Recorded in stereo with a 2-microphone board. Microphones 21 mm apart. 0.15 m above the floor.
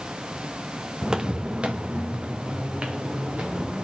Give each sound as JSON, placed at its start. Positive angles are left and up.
{"t": 1.0, "sound": "footsteps", "side_deg": -25, "distance_m": 0.5}